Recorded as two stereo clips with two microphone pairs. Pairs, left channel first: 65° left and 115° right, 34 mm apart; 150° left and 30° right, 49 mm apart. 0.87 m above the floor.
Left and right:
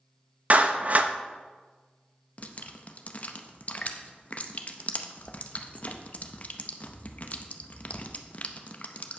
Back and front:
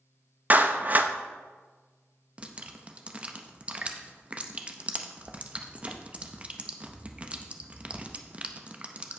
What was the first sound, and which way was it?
A clap, 75° right.